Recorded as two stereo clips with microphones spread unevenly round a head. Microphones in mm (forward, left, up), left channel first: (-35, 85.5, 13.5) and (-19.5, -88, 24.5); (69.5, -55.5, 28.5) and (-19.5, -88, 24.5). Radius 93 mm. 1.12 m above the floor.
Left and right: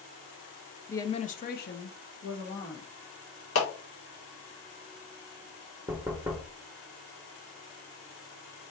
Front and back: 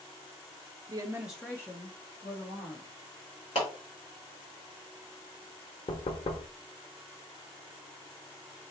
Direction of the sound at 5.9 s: 5° right.